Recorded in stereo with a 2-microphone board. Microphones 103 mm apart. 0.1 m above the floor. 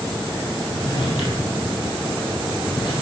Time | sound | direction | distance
0.7 | a drawer | 60° left (ahead or behind) | 1.8 m